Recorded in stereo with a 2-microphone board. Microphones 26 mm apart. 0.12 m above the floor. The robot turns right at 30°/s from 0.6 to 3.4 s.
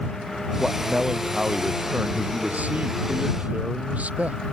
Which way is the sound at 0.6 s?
165° right.